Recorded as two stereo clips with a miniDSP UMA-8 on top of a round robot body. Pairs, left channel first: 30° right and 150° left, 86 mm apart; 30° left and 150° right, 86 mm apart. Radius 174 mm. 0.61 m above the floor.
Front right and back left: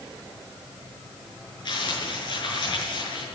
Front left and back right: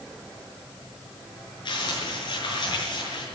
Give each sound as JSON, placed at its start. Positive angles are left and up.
{"t": 1.6, "sound": "crumpling", "azimuth_deg": 0, "distance_m": 6.5}